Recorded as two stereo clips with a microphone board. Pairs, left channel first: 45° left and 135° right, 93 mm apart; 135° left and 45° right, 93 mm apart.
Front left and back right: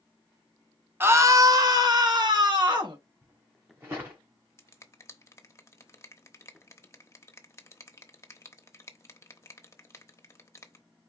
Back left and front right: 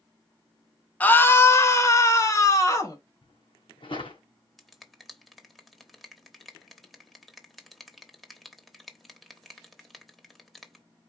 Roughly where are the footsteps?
Behind.